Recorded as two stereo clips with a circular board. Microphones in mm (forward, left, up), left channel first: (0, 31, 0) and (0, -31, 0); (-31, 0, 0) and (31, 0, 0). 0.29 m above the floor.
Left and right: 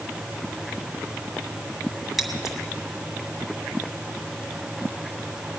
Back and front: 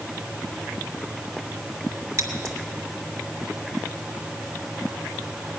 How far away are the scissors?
About 1.8 m.